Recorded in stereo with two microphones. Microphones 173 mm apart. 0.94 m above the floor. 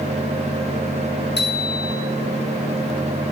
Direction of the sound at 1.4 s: 80° left.